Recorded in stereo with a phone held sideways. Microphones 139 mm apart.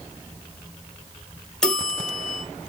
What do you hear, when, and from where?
1.6 s a bell: 5° left (ahead or behind), 1.0 m